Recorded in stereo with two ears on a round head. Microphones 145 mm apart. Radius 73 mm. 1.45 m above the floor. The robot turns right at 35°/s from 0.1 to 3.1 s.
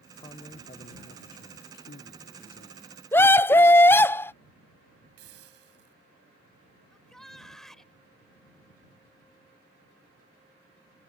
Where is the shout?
Centre (ahead or behind).